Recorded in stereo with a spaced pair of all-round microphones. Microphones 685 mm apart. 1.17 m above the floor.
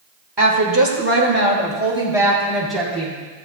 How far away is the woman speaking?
About 1.8 m.